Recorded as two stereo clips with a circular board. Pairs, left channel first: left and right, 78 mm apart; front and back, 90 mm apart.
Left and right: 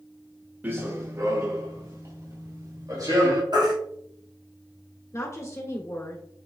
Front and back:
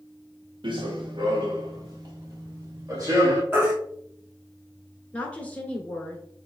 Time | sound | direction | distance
0.6 | running footsteps | 155° right | 0.9 m
3.5 | a baby crying | 115° right | 1.9 m
5.1 | a woman speaking | 65° left | 1.4 m